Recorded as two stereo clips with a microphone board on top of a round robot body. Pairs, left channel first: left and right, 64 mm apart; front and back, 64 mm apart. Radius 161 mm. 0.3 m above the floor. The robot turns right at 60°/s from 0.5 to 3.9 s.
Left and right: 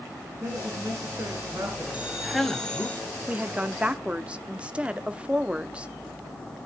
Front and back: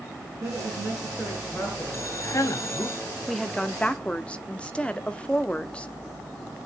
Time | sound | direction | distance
0.4 | a woman speaking | 135° right | 6 m
1.9 | a man speaking | 25° right | 1.5 m
3.3 | a woman speaking | 85° right | 1.4 m